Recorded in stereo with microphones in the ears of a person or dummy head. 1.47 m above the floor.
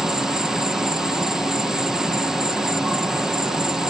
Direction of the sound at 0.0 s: 5° right (ahead or behind).